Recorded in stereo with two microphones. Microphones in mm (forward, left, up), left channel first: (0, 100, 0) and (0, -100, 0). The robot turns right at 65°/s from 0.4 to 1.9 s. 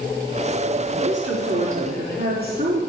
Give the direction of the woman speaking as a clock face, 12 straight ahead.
3 o'clock.